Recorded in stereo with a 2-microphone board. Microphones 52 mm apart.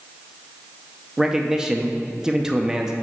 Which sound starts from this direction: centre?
A man speaking, at 1.2 s.